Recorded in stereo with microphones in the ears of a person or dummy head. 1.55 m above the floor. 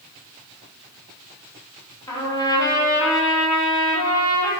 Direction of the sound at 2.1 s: 20° left (ahead or behind).